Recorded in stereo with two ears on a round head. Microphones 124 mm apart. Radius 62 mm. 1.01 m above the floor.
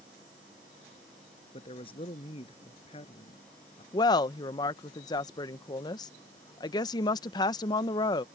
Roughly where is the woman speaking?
Left.